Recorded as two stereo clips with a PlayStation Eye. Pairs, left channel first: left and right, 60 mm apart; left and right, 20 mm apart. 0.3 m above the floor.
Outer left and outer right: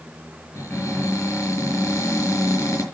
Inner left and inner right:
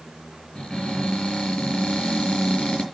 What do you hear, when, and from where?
0.6 s a cupboard door: 55° left (ahead or behind), 6 m